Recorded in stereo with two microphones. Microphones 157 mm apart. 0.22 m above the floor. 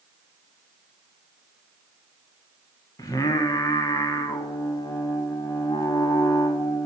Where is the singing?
25° left (ahead or behind), 0.6 m.